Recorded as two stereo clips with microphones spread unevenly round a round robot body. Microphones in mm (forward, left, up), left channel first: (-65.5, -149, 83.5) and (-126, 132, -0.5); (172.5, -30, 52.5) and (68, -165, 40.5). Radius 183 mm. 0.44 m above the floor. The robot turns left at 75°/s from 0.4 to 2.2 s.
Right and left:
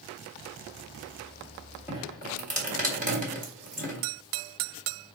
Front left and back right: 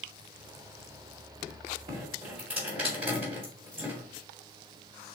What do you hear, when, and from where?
1.9 s dripping: 175° left, 2 m; by 4.0 s 150° left, 2 m